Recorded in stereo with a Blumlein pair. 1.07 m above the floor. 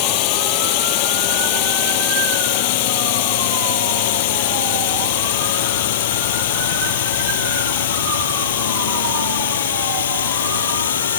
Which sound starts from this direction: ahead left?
A drone, at 0.0 s.